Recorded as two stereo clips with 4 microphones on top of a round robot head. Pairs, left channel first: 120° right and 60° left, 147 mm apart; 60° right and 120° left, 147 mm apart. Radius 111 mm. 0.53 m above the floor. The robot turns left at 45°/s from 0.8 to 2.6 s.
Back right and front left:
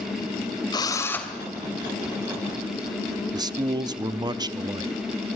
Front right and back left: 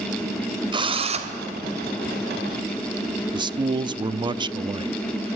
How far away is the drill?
About 2.5 m.